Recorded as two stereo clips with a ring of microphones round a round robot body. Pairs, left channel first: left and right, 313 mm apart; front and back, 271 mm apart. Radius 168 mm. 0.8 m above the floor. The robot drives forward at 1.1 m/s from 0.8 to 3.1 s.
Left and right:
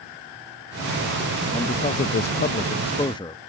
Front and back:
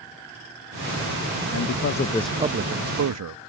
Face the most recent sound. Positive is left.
turn(degrees=165)